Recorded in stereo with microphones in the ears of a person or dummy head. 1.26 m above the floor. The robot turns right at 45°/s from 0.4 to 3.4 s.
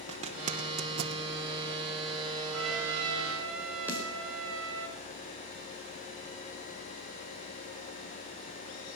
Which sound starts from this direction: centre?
A snare drum, at 3.9 s.